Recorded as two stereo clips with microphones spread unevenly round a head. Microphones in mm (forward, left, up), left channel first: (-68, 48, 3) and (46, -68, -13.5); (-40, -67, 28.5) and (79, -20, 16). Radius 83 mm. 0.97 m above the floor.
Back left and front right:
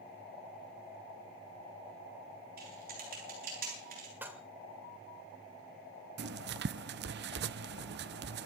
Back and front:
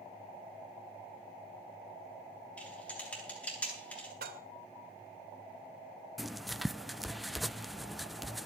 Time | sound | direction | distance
2.6 | typing on a keyboard | 80° right | 9.5 m
4.2 | dishes clattering | 35° left | 2.5 m
6.2 | writing | 70° right | 0.6 m